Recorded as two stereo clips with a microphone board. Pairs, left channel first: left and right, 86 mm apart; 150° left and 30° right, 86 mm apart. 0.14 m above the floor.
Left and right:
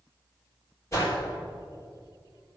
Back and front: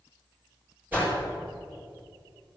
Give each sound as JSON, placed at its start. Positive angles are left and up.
{"t": 0.9, "sound": "a whoosh", "azimuth_deg": 35, "distance_m": 4.0}